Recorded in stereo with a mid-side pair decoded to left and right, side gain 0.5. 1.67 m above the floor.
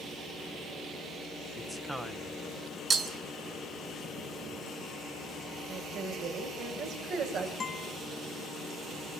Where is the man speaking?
10° right, 1.7 m.